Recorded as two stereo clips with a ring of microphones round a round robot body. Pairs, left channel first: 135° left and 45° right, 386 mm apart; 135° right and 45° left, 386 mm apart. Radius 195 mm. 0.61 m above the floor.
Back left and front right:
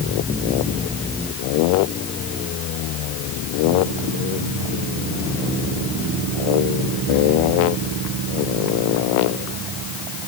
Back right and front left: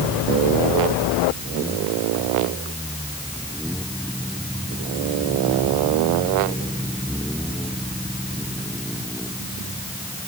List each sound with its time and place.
Only background noise.